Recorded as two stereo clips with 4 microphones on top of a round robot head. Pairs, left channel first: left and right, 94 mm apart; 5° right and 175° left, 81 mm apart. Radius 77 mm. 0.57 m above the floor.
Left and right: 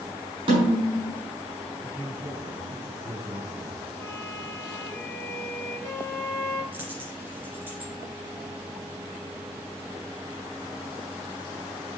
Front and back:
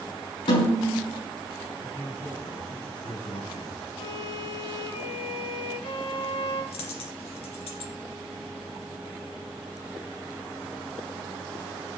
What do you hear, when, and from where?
0.5 s a snare drum: 45° right, 5 m
1.8 s a man speaking: 30° right, 6.5 m
4.0 s a violin: 10° left, 4.5 m
6.7 s a dropped coin: 15° right, 2.5 m